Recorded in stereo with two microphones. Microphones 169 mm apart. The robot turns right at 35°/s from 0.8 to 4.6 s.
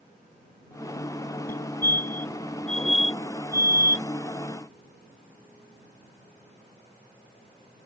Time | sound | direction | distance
1.5 | a fire alarm | 60° left (ahead or behind) | ?